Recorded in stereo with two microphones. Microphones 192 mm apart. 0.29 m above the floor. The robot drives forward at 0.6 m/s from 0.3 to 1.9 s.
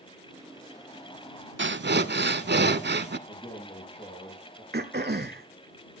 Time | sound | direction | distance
1.6 | breathing | 80° right | 0.6 m
3.3 | a man speaking | 30° left (ahead or behind) | 5 m
4.7 | throat clearing | 60° right (ahead or behind) | 1.1 m